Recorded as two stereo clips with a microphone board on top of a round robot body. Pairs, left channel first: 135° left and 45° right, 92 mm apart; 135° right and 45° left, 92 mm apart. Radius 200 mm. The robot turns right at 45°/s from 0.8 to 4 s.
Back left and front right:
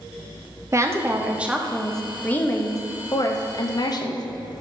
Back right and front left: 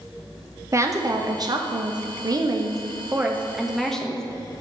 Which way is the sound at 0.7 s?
Straight ahead.